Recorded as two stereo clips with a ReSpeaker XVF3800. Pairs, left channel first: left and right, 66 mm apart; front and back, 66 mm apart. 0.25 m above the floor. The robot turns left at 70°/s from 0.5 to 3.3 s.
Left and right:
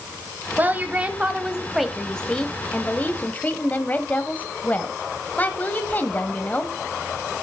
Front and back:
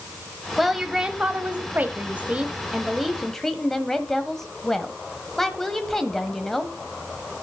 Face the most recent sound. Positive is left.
turn(degrees=80)